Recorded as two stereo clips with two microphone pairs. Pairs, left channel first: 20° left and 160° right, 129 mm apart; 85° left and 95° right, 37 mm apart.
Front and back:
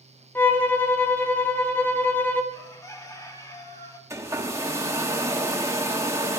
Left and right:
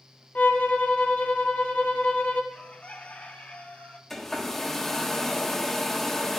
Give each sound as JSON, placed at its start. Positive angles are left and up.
{"t": 0.3, "sound": "a violin", "azimuth_deg": 90, "distance_m": 1.4}
{"t": 2.5, "sound": "a bird", "azimuth_deg": 70, "distance_m": 1.3}
{"t": 4.1, "sound": "a hair dryer", "azimuth_deg": 160, "distance_m": 1.2}